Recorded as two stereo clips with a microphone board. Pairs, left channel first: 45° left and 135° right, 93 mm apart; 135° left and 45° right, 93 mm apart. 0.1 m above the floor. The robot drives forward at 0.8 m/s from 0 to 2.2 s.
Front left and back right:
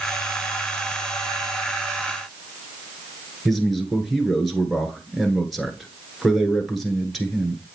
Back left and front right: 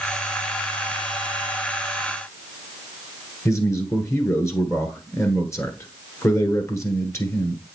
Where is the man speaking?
135° left, 1.4 m.